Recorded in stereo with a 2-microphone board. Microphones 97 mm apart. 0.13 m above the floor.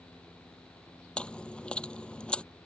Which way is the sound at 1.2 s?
10° left (ahead or behind).